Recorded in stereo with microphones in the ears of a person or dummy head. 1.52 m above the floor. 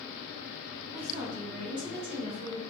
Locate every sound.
0.9 s a woman speaking: 40° right (ahead or behind), 1.7 m; by 2.6 s 80° right, 2 m